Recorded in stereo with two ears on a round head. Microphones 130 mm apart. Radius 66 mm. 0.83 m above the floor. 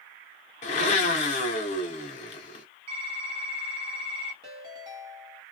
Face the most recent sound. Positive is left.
turn(degrees=-35)  # may be behind; listen again after turning